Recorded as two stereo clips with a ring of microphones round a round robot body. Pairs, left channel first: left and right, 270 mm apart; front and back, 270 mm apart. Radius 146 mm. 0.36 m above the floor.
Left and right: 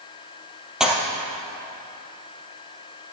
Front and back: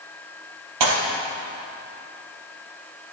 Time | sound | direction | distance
0.8 | a pop | straight behind | 2.5 m